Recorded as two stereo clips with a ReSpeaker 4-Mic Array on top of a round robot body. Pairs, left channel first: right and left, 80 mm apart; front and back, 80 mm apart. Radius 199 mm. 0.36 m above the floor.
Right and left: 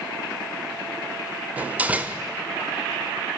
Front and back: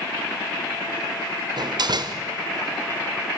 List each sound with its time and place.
1.6 s a door slam: 160° left, 1.5 m